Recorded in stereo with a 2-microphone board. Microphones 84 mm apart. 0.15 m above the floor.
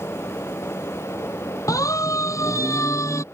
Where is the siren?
40° left (ahead or behind); by 3.2 s 35° left (ahead or behind).